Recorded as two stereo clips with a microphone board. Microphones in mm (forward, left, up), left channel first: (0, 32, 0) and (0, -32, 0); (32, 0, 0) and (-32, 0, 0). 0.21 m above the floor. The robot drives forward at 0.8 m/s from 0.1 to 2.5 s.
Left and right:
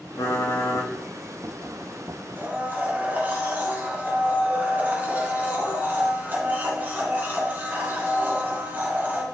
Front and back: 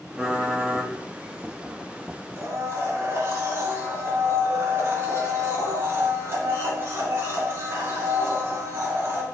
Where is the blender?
140° right, 2 m.